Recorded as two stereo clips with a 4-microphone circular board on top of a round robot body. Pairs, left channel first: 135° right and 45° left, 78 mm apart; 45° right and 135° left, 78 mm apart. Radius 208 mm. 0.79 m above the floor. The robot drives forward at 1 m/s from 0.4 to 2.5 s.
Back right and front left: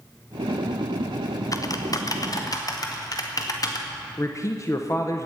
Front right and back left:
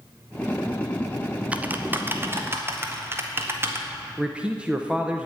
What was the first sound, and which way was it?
Typing on a keyboard, 155° right.